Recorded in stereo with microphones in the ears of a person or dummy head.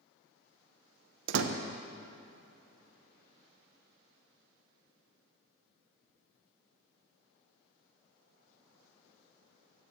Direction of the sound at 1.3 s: 80° right.